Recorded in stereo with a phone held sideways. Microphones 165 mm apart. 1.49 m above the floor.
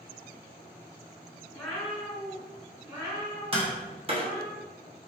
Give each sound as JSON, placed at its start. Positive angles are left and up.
{"t": 1.5, "sound": "a cat meowing", "side_deg": 5, "distance_m": 1.6}
{"t": 3.5, "sound": "tapping", "side_deg": -35, "distance_m": 0.9}